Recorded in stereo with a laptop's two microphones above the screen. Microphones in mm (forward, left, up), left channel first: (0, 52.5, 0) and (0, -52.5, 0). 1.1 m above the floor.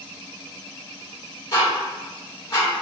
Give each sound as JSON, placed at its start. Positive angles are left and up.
{"t": 1.5, "sound": "ticking", "side_deg": 35, "distance_m": 1.9}